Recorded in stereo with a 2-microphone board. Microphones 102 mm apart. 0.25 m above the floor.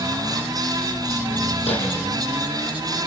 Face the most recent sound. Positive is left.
turn(degrees=85)